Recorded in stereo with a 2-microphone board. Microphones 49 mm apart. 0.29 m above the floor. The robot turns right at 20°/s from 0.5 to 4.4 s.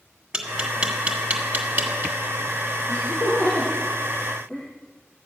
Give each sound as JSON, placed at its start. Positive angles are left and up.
{"t": 0.3, "sound": "tapping", "side_deg": -15, "distance_m": 2.0}
{"t": 2.9, "sound": "laughter", "side_deg": 45, "distance_m": 8.0}